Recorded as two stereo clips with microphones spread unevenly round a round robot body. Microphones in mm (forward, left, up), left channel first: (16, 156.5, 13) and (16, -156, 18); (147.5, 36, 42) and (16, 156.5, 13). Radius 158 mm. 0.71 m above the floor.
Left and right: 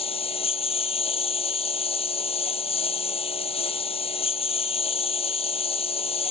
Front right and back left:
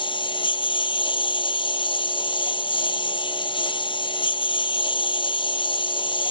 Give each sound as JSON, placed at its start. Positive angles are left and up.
{"t": 0.0, "sound": "a lawn mower", "azimuth_deg": 20}